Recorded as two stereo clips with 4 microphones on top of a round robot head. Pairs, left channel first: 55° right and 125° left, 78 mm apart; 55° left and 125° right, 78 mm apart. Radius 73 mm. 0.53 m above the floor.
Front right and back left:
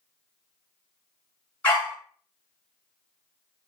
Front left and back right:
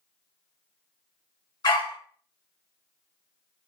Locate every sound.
1.6 s a dog barking: 20° left, 2 m